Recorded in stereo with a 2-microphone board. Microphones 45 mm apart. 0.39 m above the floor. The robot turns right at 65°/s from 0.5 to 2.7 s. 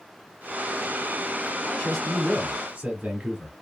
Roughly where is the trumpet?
No trumpet in this recording.